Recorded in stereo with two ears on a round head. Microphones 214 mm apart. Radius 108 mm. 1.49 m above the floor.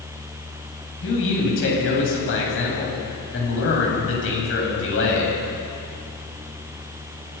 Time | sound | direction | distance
1.0 | a man speaking | 55° left (ahead or behind) | 8 m